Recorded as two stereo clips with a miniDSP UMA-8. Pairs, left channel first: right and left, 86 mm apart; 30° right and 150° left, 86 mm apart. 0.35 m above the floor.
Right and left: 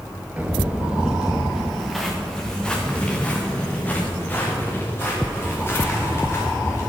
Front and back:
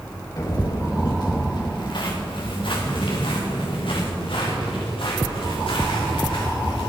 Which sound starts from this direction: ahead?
Footsteps, at 0.4 s.